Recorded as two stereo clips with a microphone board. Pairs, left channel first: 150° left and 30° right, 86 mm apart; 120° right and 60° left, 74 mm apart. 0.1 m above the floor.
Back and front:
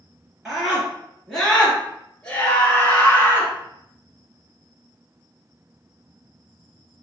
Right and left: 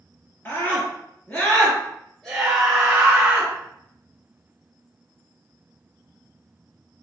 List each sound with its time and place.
0.5 s a scream: 110° right, 1.8 m; by 3.5 s 115° left, 1.7 m